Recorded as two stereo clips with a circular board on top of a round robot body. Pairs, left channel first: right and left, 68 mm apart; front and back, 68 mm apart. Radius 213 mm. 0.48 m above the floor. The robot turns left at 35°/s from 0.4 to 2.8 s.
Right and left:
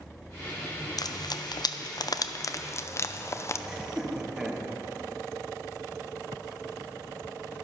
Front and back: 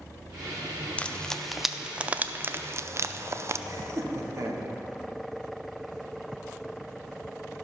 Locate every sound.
1.0 s frying: 75° right, 0.5 m; by 3.6 s 135° right, 0.5 m
3.7 s laughter: 165° left, 1.6 m